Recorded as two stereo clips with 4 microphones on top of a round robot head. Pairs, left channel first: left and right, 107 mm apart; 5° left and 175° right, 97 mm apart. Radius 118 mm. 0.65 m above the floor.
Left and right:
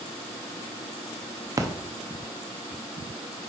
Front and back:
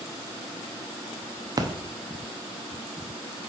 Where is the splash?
140° right, 0.8 m.